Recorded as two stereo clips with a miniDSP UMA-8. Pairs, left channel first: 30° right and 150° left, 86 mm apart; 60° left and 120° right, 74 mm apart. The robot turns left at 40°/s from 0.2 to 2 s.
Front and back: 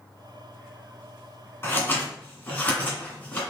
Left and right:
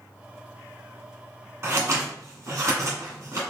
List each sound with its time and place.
1.6 s scissors: 75° right, 1.9 m; by 3.4 s 90° right, 1.9 m